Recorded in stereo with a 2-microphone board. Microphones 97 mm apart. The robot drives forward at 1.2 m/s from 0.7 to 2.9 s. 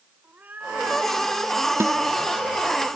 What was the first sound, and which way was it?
A cat meowing, 20° right (ahead or behind).